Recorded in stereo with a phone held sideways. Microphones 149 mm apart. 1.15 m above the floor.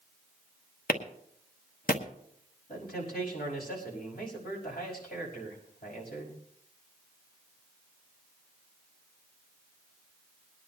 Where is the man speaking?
85° left, 5.5 m.